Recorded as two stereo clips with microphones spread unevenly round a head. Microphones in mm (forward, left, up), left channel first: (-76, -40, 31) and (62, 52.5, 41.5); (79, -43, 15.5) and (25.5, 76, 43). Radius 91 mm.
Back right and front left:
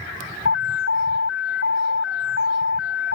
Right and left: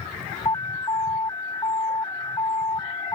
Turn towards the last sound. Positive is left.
turn(degrees=-140)